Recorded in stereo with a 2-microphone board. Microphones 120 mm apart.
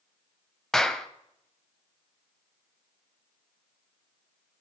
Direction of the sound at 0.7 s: 5° left (ahead or behind).